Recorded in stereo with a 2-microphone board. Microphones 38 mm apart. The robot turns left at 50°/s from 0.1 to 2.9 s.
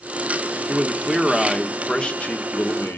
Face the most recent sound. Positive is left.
turn(degrees=110)